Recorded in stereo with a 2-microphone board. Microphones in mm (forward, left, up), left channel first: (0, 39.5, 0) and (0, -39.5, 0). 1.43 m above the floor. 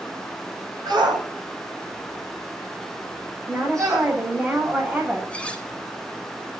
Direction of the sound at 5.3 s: 15° left (ahead or behind).